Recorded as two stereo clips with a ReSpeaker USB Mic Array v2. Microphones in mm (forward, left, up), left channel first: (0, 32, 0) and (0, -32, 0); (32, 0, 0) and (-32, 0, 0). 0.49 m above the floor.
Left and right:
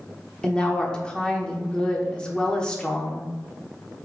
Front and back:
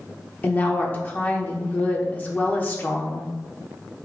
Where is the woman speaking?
30° left, 0.8 m.